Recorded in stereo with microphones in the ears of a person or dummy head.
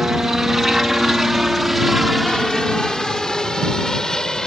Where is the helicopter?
5° right (ahead or behind); by 4.5 s centre (ahead or behind).